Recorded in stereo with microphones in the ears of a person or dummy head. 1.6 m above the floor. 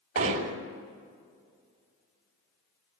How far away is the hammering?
About 2.5 m.